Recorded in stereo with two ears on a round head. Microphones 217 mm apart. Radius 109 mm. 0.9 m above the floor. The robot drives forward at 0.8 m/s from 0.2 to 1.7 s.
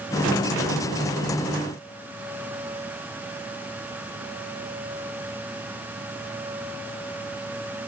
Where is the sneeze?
No sneeze in this recording.